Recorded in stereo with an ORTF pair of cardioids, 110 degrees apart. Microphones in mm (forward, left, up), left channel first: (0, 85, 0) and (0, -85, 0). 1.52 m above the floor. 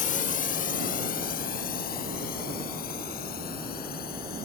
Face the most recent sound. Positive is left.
turn(degrees=60)